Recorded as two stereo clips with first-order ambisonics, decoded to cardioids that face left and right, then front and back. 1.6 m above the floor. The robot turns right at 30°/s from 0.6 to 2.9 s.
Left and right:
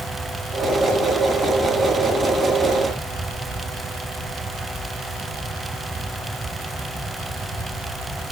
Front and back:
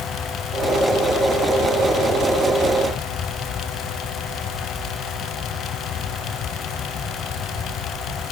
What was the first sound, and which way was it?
Only background noise.